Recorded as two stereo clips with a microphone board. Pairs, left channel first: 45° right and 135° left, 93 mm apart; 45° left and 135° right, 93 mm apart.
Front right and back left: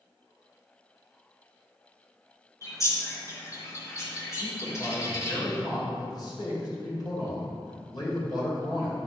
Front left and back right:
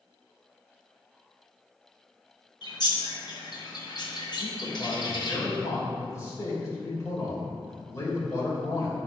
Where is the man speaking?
10° right, 3 m.